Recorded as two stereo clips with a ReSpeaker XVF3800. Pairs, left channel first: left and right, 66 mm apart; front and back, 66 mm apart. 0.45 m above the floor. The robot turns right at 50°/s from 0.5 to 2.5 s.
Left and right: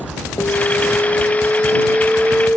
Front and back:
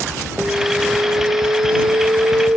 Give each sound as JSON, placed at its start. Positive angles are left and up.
{"t": 0.4, "sound": "an alarm", "azimuth_deg": 110}